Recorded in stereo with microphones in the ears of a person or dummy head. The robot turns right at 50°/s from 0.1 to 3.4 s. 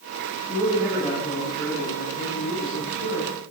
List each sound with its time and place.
0.5 s a man speaking: 35° right, 4 m; by 3.3 s 105° left, 4 m